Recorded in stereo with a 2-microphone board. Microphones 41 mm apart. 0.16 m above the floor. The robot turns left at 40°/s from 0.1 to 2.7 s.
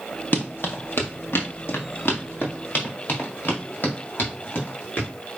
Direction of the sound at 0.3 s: 50° left (ahead or behind).